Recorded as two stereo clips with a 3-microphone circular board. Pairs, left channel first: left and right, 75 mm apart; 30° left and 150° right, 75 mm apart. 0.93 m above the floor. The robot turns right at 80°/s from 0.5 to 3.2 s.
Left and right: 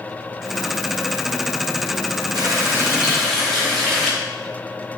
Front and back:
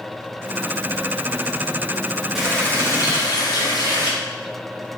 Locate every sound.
2.4 s a running tap: 65° right, 0.6 m; by 4.1 s 5° left, 0.6 m